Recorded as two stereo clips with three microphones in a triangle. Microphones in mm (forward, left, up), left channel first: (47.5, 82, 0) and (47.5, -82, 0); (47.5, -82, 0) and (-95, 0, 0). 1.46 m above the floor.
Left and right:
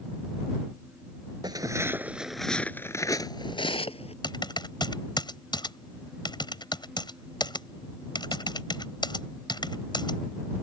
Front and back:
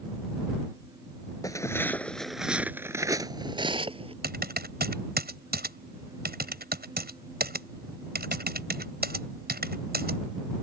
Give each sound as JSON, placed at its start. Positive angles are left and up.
{"t": 1.4, "sound": "footsteps", "azimuth_deg": -65}
{"t": 4.2, "sound": "typing on a keyboard", "azimuth_deg": 155}